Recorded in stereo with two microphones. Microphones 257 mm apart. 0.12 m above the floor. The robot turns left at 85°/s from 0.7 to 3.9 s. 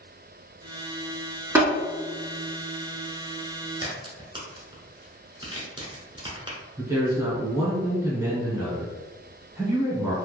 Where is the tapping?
10° right (ahead or behind), 1.6 m.